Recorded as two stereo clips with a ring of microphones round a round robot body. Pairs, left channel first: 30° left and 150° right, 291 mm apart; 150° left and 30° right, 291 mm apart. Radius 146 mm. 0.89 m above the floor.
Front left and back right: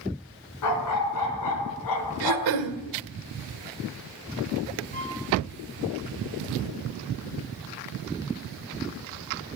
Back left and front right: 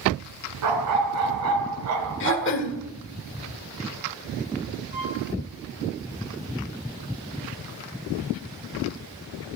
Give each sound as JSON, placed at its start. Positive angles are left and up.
{"t": 0.6, "sound": "a dog barking", "azimuth_deg": 0, "distance_m": 3.5}
{"t": 2.2, "sound": "throat clearing", "azimuth_deg": -160, "distance_m": 1.7}
{"t": 4.9, "sound": "a violin", "azimuth_deg": -30, "distance_m": 9.0}